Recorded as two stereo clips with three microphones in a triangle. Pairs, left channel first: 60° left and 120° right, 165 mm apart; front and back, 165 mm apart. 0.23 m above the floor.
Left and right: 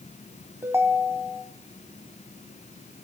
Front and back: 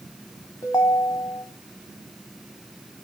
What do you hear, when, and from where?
0.6 s a ringtone: 55° right, 1.2 m